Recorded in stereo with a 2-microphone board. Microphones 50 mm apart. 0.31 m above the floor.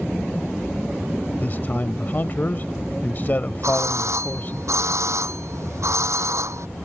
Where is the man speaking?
40° left (ahead or behind).